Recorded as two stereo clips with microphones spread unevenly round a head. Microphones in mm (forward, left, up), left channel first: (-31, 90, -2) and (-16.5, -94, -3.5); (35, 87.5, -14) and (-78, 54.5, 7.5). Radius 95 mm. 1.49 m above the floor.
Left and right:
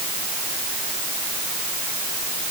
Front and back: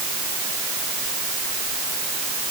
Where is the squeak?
No squeak in this recording.